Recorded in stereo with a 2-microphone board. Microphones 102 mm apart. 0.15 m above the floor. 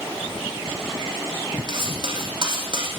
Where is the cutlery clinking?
50° right (ahead or behind), 3.5 m.